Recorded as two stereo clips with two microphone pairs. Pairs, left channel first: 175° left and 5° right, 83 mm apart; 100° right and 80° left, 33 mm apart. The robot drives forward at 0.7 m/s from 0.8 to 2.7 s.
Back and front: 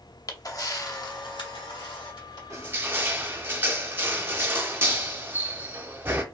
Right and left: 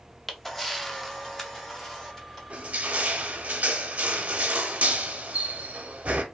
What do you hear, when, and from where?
0.3 s a camera shutter: 175° right, 0.5 m; by 2.4 s straight behind, 1.5 m
2.5 s crushing: 40° left, 0.6 m; by 6.2 s 50° left, 0.5 m